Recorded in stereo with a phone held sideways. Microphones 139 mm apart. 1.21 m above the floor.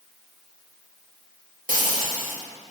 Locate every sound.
1.7 s frying: 80° right, 1.9 m